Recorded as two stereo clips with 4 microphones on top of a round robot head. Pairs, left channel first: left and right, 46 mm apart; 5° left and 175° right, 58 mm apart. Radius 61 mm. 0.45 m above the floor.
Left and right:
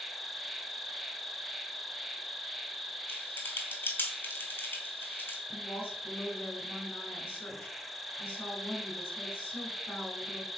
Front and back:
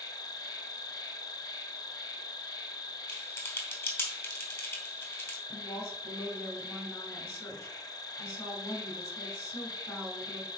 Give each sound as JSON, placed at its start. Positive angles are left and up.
{"t": 0.0, "sound": "an insect", "azimuth_deg": 0, "distance_m": 1.1}
{"t": 3.1, "sound": "typing on a keyboard", "azimuth_deg": 45, "distance_m": 3.0}
{"t": 5.5, "sound": "a woman speaking", "azimuth_deg": 35, "distance_m": 6.0}